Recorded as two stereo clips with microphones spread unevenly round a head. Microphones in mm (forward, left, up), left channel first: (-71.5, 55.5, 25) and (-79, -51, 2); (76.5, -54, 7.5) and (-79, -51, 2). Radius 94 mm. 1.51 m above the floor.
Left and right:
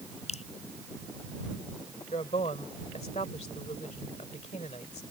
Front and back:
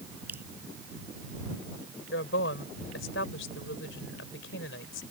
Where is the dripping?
95° left.